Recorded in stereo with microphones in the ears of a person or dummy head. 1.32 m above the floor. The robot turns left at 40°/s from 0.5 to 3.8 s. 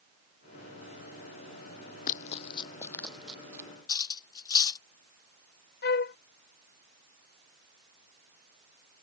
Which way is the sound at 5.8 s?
50° left (ahead or behind).